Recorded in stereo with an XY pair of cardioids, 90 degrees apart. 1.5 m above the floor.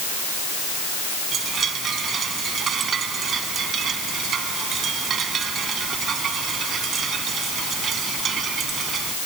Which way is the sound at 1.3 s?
60° right.